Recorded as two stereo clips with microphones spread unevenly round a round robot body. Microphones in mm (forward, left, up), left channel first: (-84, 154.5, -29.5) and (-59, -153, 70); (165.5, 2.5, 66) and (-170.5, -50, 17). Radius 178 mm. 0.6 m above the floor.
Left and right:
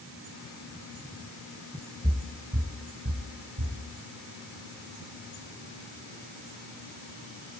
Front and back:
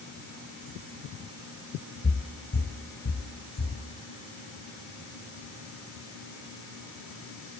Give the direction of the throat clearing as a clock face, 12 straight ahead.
No throat clearing in this recording.